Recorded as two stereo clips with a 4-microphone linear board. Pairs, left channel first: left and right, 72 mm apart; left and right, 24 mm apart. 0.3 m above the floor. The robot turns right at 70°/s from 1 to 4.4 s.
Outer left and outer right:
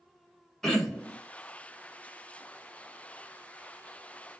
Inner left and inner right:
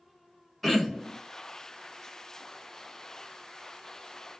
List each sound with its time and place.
0.6 s throat clearing: 5° left (ahead or behind), 1.3 m; by 1.2 s 10° left (ahead or behind), 1.3 m